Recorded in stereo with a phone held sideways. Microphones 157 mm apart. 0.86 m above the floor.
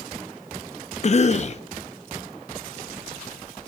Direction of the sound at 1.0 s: 45° left (ahead or behind).